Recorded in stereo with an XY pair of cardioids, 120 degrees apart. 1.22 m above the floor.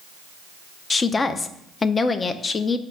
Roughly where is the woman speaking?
Ahead left.